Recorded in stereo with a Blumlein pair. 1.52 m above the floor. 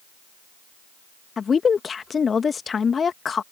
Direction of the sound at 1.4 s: 20° left.